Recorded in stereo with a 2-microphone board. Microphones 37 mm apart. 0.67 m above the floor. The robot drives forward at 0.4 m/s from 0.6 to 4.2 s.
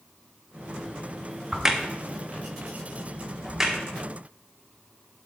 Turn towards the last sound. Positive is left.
turn(degrees=-5)  # may be behind; listen again after turning